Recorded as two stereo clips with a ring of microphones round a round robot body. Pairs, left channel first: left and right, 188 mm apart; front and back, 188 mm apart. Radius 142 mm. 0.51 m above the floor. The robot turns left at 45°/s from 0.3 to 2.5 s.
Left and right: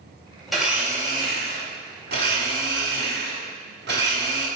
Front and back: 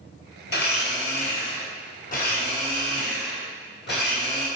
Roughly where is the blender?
Ahead.